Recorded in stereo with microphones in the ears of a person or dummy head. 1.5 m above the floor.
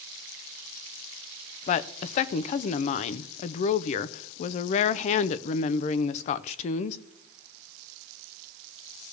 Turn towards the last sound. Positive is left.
turn(degrees=40)  # may be behind; listen again after turning